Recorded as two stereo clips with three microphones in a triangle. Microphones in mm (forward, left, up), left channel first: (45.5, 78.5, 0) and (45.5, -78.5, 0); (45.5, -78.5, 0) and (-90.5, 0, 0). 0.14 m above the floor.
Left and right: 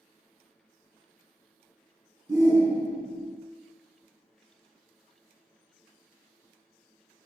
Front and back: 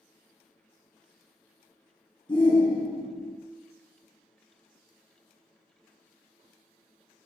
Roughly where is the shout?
Ahead right.